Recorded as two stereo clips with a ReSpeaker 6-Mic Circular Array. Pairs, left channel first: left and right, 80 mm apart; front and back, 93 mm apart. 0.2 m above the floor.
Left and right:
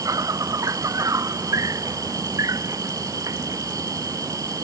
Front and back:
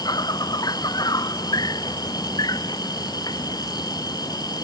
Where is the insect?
45° right.